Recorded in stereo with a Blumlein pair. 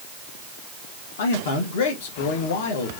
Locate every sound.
1.2 s a man speaking: 60° left, 1.6 m